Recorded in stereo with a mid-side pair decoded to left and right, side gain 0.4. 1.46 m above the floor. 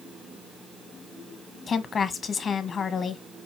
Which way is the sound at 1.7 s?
55° left.